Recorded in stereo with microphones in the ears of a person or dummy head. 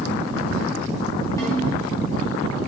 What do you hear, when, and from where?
1.4 s a snare drum: 15° left (ahead or behind), 2.5 m